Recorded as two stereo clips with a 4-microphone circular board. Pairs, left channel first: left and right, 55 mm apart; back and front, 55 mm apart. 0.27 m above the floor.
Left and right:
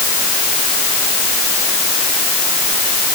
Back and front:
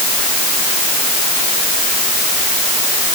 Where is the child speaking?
No child speaking in this recording.